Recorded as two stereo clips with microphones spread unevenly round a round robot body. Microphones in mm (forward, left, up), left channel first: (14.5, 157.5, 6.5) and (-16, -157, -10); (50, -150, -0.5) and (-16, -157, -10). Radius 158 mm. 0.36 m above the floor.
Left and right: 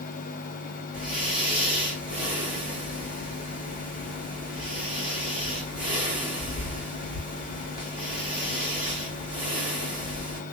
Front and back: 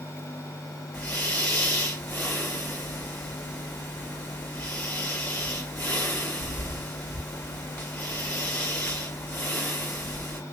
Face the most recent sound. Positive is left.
turn(degrees=-45)